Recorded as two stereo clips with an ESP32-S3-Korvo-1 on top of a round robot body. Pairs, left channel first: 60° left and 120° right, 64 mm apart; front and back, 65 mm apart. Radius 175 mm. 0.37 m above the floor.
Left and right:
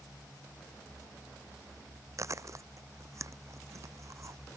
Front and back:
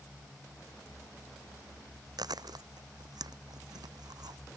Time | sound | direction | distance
2.2 | chewing | 165° right | ?